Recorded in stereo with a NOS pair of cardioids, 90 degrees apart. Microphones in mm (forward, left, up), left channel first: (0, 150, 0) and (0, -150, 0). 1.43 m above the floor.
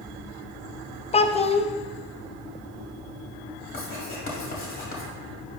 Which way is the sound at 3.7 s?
45° left.